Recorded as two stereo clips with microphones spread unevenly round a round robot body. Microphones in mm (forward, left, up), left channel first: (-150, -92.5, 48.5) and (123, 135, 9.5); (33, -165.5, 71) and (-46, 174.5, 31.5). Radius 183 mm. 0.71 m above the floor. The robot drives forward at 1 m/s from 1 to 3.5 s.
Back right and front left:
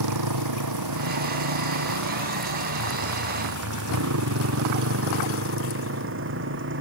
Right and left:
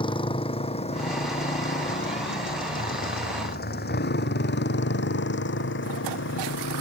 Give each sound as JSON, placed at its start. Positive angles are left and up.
{"t": 0.0, "sound": "a motorcycle", "azimuth_deg": 0}